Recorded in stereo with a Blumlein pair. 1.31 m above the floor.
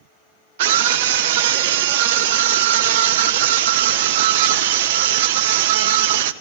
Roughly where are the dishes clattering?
No dishes clattering in this recording.